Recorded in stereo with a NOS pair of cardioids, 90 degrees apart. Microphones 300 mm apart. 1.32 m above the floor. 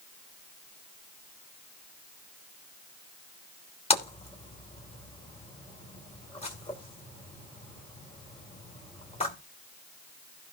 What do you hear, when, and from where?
3.9 s a splash: 20° left, 3 m